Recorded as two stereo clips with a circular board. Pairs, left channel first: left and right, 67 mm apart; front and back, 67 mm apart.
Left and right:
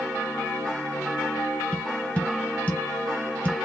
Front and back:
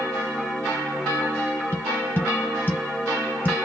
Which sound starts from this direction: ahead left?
Tapping, at 1.7 s.